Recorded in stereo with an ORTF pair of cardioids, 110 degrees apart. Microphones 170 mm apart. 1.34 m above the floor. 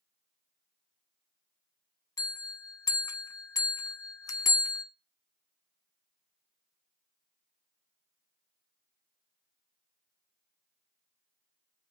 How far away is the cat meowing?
No cat meowing in this recording.